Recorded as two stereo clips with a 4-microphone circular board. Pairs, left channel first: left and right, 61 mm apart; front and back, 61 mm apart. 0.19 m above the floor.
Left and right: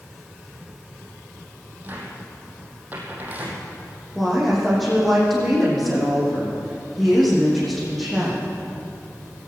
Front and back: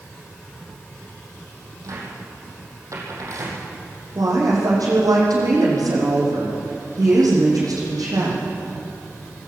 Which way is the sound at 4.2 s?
Straight behind.